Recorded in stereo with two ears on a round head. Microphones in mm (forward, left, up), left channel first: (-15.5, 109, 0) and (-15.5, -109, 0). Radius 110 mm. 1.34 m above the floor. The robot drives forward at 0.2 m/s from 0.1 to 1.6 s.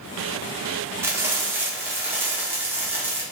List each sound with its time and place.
1.0 s frying: 10° right (ahead or behind), 0.6 m